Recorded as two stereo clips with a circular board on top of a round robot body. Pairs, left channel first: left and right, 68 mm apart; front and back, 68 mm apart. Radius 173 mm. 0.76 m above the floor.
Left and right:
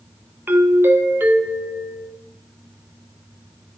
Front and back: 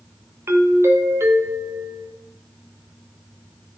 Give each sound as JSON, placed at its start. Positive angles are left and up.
{"t": 0.5, "sound": "a doorbell", "azimuth_deg": -145, "distance_m": 1.6}